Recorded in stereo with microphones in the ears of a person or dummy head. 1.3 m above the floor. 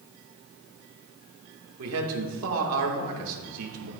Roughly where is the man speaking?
Right.